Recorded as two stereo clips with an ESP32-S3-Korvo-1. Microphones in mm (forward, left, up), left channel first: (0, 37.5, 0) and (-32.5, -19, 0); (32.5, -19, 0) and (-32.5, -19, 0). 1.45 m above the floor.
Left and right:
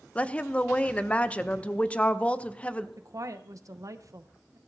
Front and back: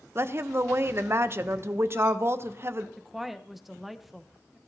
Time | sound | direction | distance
0.1 | a woman speaking | 130° left | 0.6 m
3.0 | a woman speaking | 95° right | 0.8 m